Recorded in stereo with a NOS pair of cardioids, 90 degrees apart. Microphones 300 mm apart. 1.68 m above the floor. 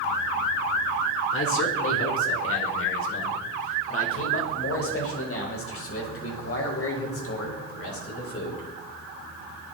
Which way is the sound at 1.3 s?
45° left.